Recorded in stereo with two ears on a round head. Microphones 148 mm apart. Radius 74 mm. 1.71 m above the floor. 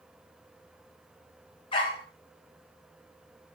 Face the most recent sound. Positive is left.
turn(degrees=30)  # may be behind; listen again after turning